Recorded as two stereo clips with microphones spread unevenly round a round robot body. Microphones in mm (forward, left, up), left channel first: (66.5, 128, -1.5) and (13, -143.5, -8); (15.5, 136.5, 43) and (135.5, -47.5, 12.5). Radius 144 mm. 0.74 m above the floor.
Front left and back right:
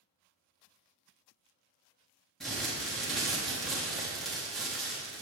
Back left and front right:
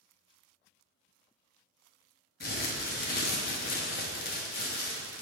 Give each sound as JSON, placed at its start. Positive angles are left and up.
{"t": 2.4, "sound": "crumpling", "azimuth_deg": 170, "distance_m": 0.9}